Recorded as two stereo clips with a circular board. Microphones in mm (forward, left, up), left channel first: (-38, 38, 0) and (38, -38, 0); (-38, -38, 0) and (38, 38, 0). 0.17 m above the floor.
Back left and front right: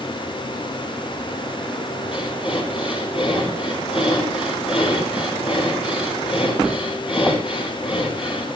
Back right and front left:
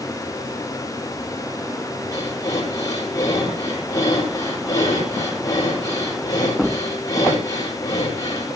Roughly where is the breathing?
Behind.